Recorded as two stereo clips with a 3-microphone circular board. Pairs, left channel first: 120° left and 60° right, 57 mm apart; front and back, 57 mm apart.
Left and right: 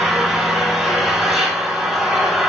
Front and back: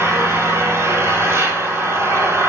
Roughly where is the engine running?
Behind right.